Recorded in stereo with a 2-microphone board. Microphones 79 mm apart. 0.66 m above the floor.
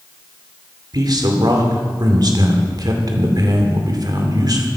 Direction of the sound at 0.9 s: 55° right (ahead or behind).